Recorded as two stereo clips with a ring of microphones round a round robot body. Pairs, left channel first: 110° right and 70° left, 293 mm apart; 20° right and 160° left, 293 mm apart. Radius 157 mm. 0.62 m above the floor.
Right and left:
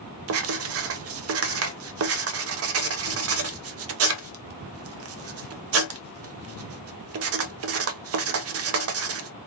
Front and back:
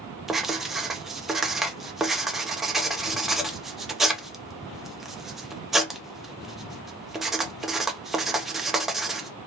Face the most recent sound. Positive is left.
turn(degrees=70)